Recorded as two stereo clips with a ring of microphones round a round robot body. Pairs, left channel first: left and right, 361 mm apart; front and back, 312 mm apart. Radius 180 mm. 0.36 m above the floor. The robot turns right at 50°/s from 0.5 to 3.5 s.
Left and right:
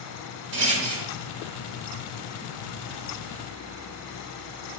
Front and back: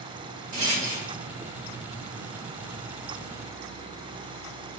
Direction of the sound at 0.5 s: 130° right.